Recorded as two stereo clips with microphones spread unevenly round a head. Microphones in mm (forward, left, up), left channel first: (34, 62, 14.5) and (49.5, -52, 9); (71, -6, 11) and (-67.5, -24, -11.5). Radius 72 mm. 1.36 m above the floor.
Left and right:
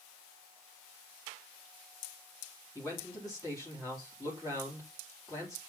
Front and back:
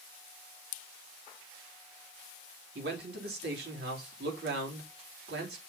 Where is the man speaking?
170° left, 3.5 m.